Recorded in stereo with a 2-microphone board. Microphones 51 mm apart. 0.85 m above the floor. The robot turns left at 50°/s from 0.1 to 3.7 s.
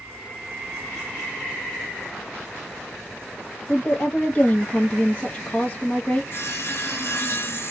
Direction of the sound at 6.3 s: 50° left (ahead or behind).